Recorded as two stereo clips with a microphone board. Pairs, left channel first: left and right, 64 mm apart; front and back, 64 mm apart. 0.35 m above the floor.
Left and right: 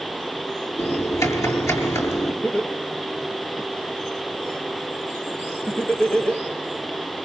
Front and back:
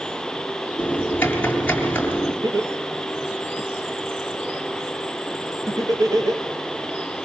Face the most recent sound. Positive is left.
turn(degrees=160)